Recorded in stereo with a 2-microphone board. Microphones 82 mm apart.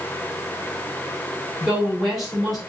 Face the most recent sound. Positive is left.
turn(degrees=0)  # may be behind; listen again after turning